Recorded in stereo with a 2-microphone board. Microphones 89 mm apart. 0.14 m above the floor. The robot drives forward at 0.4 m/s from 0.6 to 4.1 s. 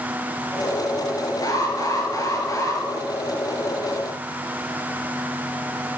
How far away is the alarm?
About 3 m.